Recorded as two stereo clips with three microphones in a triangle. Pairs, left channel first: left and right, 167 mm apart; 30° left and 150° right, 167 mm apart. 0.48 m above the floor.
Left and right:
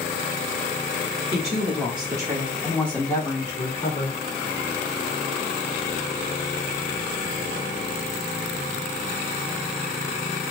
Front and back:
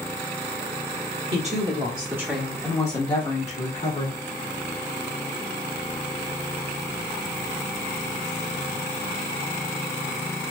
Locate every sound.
1.3 s a woman speaking: 120° right, 1.2 m; by 4.2 s 45° left, 1.4 m